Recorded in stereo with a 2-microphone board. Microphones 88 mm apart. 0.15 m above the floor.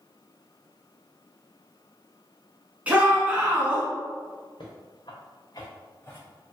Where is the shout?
15° right (ahead or behind), 1.1 m.